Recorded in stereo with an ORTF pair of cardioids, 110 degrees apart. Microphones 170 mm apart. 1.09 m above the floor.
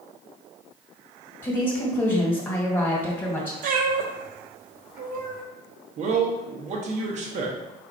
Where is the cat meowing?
55° right, 1.0 m.